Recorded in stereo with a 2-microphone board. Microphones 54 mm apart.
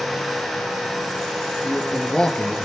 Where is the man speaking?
15° left (ahead or behind), 4.5 m.